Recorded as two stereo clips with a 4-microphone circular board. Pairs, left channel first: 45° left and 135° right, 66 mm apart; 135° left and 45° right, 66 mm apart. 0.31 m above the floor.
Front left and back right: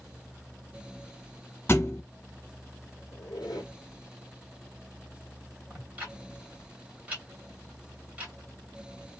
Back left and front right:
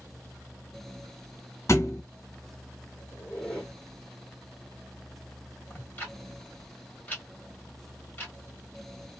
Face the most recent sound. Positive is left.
turn(degrees=170)